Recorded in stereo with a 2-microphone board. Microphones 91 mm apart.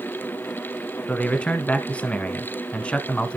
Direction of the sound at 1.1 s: 15° left (ahead or behind).